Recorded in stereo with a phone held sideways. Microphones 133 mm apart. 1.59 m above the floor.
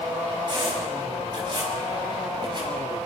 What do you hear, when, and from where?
0.5 s a squeak: 40° right (ahead or behind), 6.5 m